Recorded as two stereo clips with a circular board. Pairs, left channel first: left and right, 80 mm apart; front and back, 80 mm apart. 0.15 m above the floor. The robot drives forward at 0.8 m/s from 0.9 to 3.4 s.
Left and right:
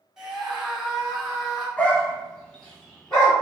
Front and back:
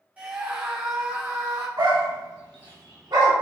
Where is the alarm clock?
No alarm clock in this recording.